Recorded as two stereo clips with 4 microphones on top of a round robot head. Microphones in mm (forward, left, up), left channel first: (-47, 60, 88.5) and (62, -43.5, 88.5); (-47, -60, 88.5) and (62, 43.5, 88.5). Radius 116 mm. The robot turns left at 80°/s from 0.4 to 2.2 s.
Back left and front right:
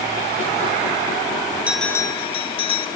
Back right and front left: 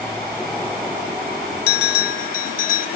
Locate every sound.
1.7 s a bell: 125° right, 0.7 m; by 2.9 s 170° right, 0.7 m